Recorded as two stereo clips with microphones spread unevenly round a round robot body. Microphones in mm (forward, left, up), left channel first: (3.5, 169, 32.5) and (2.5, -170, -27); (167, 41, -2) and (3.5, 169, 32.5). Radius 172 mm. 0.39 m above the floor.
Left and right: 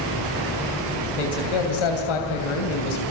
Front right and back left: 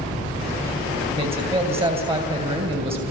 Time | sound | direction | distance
1.2 | a man speaking | 75° left | 3 m